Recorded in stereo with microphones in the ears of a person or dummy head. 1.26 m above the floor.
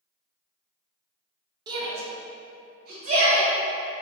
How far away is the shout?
About 0.9 m.